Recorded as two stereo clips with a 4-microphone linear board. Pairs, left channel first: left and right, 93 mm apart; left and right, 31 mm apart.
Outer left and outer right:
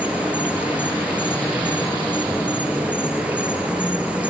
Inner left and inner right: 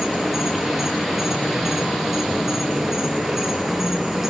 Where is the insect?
15° right (ahead or behind), 5 m.